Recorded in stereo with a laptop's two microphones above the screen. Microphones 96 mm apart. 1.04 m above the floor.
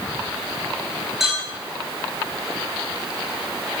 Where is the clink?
5° right (ahead or behind), 4 m.